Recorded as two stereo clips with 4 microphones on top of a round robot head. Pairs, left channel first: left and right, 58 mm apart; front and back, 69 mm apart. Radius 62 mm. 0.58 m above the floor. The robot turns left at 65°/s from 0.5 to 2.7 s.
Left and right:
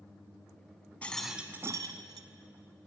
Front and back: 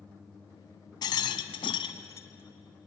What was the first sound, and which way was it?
A rattle, 15° left.